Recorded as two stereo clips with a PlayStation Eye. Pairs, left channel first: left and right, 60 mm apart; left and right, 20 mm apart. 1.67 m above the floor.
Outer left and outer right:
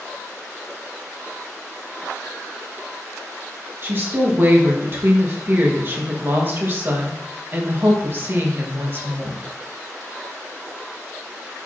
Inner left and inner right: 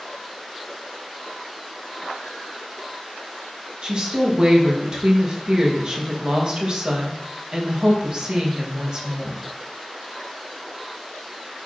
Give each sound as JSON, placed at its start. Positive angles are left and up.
{"t": 3.8, "sound": "a woman speaking", "side_deg": -40, "distance_m": 1.7}